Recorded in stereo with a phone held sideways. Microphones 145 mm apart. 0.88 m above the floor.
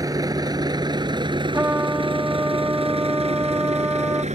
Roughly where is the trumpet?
Centre.